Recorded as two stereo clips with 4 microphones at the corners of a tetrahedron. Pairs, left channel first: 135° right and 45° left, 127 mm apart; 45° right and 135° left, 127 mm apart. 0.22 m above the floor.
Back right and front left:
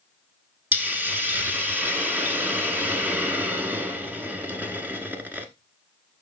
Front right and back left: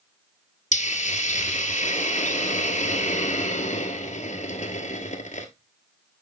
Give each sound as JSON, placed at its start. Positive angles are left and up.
{"t": 0.7, "sound": "a hiss", "azimuth_deg": -30, "distance_m": 1.2}